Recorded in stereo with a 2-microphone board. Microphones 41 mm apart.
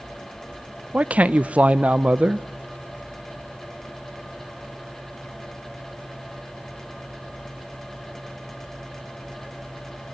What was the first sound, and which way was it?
A man speaking, 35° right (ahead or behind).